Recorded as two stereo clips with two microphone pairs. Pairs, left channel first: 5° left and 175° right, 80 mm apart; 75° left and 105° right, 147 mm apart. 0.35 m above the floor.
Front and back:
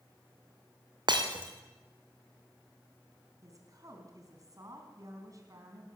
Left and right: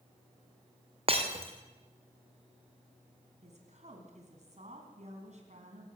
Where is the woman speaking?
135° right, 3.5 m.